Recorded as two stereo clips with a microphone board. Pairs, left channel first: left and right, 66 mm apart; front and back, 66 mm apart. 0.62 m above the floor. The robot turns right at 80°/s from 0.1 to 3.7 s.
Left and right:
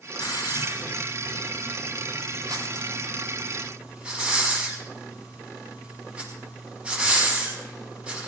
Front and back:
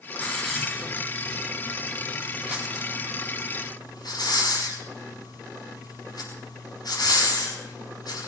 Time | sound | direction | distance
0.2 | a hiss | 60° left | 6 m